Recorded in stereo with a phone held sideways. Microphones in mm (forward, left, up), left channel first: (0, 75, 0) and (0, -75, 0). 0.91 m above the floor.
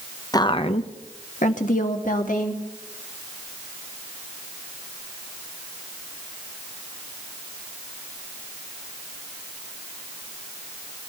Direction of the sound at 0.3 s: 25° left (ahead or behind).